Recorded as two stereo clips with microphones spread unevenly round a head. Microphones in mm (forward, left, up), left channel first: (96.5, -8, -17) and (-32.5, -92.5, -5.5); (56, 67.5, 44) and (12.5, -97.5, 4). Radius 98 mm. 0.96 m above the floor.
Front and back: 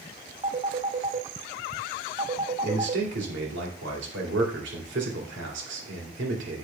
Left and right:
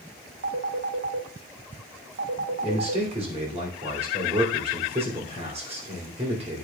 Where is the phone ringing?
95° right, 0.8 m.